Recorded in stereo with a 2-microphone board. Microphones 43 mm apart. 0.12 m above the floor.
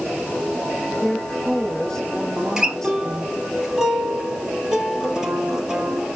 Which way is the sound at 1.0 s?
10° left (ahead or behind).